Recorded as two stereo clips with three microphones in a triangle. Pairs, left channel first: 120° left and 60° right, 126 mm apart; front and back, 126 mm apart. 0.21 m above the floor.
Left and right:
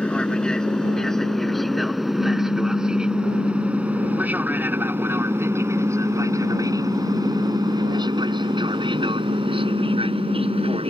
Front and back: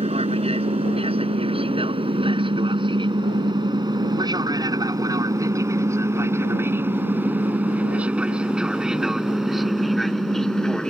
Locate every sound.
0.0 s an aircraft: 160° right; by 10.9 s 85° right
2.1 s a pop: 140° left